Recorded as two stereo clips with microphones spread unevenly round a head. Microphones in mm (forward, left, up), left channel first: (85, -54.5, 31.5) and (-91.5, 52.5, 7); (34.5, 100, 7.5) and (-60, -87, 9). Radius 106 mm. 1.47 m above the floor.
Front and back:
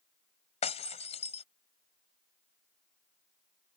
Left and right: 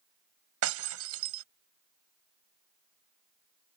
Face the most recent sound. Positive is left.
turn(degrees=-90)